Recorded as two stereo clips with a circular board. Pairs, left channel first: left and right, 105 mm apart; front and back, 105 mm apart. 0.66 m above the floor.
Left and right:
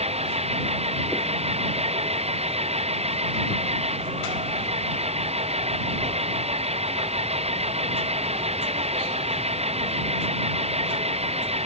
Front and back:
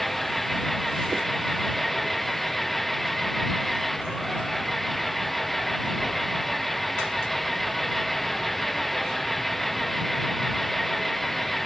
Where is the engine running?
90° right.